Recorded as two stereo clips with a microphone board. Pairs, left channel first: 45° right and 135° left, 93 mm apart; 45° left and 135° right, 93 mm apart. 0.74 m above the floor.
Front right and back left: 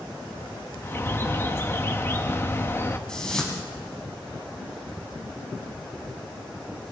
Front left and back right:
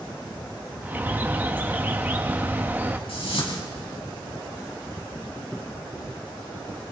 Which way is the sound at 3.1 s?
35° left.